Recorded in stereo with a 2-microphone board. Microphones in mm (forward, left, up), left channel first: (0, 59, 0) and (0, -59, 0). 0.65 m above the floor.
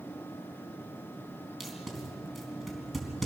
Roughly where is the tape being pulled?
Centre.